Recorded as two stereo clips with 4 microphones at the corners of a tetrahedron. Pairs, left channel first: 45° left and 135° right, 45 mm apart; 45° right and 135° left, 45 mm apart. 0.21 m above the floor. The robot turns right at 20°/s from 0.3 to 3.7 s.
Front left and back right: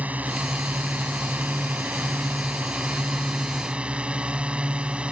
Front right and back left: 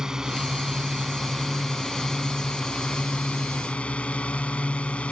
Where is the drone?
155° right; by 5.1 s 90° right.